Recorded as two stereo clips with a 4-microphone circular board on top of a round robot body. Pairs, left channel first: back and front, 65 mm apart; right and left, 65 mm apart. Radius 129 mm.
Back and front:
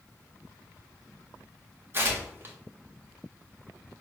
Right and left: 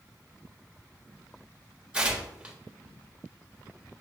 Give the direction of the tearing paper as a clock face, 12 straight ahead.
11 o'clock.